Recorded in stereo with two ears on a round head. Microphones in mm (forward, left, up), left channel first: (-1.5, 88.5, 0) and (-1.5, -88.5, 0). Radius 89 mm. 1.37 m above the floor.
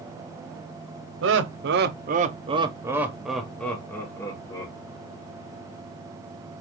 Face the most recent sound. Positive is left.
turn(degrees=20)  # may be behind; listen again after turning